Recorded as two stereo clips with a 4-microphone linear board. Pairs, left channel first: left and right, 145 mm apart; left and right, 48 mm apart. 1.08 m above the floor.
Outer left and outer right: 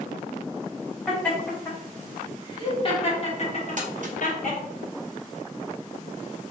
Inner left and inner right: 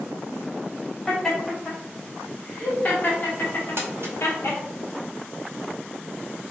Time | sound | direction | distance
1.1 | laughter | 10° left (ahead or behind) | 1.8 m
3.8 | crumpling | 60° right (ahead or behind) | 1.0 m